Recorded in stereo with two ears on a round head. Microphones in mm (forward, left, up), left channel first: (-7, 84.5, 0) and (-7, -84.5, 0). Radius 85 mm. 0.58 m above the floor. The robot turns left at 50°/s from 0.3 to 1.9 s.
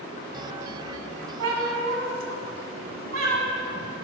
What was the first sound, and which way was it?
A cat meowing, 80° right.